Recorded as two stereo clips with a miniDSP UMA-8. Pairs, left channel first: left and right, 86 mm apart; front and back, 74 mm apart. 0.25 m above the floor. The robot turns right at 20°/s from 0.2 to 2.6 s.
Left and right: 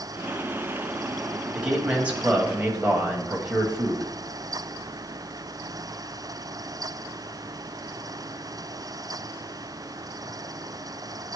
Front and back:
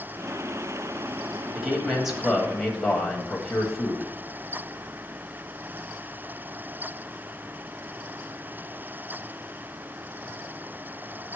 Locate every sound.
1.5 s a man speaking: 120° right, 1.4 m; by 4.1 s 95° right, 1.4 m